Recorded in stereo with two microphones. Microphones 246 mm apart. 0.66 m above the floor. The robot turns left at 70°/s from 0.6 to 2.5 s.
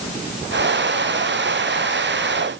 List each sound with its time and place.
Only background noise.